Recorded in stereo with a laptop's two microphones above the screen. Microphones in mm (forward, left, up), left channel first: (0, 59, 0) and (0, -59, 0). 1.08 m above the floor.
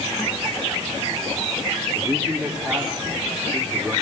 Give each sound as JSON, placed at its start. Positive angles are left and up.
{"t": 1.9, "sound": "a man speaking", "side_deg": -20, "distance_m": 3.0}